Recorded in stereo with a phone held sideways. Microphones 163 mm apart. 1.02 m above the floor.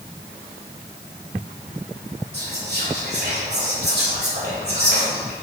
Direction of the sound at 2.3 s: 80° right.